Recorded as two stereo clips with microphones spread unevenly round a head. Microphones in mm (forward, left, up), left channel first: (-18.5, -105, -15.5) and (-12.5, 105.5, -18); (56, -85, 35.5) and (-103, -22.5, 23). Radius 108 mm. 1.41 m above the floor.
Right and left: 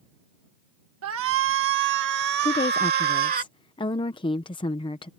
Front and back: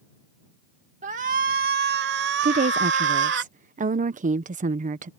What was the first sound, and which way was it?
A shout, 100° left.